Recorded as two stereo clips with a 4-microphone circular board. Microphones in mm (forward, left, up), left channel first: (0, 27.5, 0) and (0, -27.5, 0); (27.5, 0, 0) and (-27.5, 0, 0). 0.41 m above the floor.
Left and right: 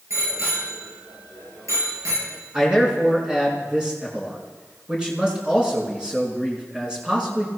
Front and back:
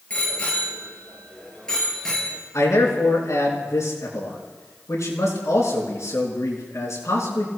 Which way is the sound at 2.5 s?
20° right.